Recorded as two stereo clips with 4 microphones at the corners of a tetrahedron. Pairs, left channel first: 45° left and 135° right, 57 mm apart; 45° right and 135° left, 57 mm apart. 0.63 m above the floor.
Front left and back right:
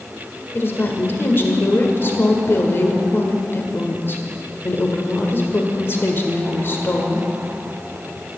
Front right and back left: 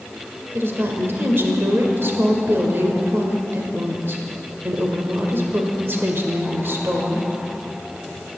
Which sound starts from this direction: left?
A woman speaking, at 0.5 s.